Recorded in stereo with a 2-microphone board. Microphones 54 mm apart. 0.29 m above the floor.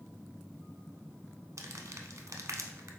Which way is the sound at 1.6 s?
65° right (ahead or behind).